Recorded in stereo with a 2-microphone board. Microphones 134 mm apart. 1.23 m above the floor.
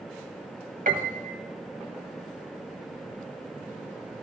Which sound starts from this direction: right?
A piano, at 0.9 s.